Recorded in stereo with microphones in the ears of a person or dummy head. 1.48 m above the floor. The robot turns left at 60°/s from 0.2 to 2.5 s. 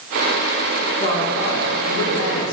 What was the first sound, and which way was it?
A woman speaking, 160° left.